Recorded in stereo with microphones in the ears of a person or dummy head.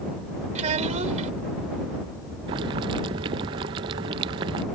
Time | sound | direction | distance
0.6 | a child speaking | 35° right (ahead or behind) | ?
2.5 | boiling | 15° right (ahead or behind) | ?